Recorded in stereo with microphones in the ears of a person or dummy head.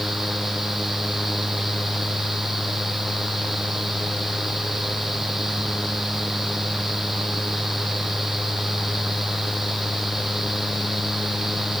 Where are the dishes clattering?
I don't hear dishes clattering.